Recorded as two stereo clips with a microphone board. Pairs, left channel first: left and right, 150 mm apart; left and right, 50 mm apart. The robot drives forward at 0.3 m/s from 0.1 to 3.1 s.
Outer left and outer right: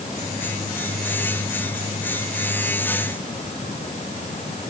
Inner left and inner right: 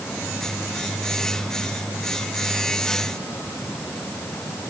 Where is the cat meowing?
No cat meowing in this recording.